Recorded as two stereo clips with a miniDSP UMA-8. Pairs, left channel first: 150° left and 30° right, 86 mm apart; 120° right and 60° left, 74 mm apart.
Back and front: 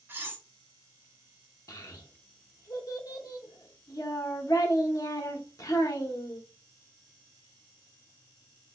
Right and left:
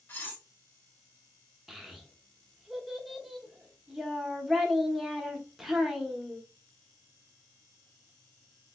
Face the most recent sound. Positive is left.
turn(degrees=145)